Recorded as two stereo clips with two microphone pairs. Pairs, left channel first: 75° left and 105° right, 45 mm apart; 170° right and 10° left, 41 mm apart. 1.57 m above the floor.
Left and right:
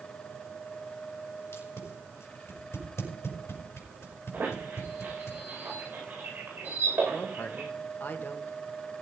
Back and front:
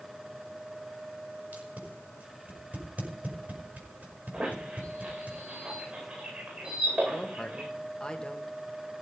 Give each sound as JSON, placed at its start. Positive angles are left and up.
{"t": 1.5, "sound": "tape being pulled", "azimuth_deg": 60, "distance_m": 5.5}
{"t": 4.3, "sound": "a squeak", "azimuth_deg": -55, "distance_m": 9.0}
{"t": 7.1, "sound": "a woman speaking", "azimuth_deg": 115, "distance_m": 2.0}